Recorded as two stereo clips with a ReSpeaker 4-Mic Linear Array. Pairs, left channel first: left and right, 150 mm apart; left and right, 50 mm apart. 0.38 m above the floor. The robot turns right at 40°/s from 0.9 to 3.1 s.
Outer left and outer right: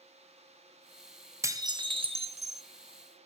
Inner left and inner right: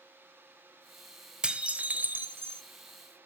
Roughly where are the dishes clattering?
Behind right.